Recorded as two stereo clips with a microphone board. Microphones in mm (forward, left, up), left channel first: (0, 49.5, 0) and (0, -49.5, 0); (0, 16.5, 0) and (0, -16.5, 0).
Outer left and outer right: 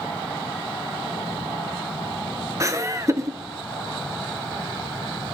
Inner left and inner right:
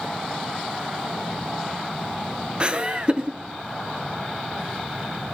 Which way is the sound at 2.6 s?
35° right (ahead or behind).